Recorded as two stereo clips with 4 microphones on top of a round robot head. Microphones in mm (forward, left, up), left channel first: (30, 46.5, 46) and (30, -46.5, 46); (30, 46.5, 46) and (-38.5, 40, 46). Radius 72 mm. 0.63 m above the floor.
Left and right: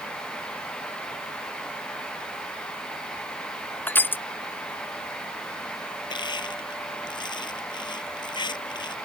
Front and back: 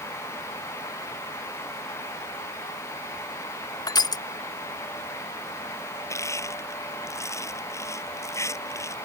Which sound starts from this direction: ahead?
Crushing, at 3.9 s.